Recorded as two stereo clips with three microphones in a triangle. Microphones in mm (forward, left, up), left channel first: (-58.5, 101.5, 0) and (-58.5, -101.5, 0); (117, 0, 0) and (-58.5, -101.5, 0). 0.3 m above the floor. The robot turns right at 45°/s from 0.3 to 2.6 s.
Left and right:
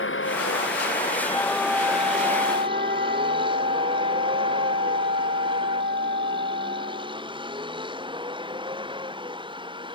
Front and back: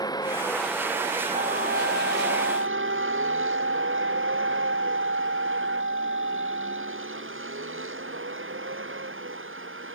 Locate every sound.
0.0 s a vehicle: 100° left; by 10.0 s 155° right
1.3 s a flute: 170° left; by 7.3 s 135° right